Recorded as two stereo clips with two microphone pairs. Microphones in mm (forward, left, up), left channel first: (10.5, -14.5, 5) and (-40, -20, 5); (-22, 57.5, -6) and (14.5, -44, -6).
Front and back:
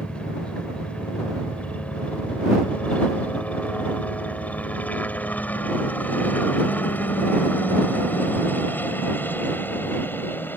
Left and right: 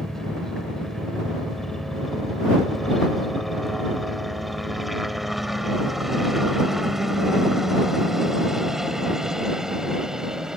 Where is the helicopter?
30° left; by 10.6 s 10° left.